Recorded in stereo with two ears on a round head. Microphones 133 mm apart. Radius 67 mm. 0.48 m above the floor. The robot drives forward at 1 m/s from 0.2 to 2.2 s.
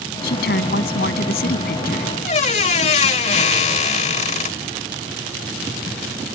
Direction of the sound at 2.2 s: 50° left (ahead or behind).